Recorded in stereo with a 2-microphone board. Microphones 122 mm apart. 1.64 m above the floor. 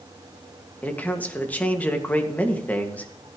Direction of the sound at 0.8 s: 15° left (ahead or behind).